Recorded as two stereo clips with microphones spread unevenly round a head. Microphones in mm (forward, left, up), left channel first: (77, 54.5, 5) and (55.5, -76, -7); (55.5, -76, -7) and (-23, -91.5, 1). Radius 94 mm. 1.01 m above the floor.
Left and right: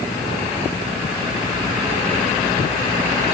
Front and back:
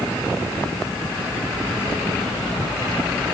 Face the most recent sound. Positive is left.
No sound to turn to.